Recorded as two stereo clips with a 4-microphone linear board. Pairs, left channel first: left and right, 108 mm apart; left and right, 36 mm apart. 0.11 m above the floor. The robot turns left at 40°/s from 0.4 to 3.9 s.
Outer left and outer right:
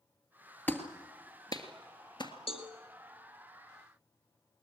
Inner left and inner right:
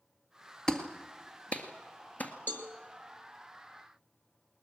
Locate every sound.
0.7 s a clap: 15° left (ahead or behind), 1.9 m; by 2.3 s 45° left (ahead or behind), 1.9 m
2.5 s a cowbell: 60° left (ahead or behind), 2.5 m; by 2.7 s 65° left (ahead or behind), 2.5 m